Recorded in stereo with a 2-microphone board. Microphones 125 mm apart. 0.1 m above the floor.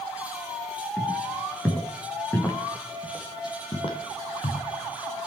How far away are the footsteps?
About 3 m.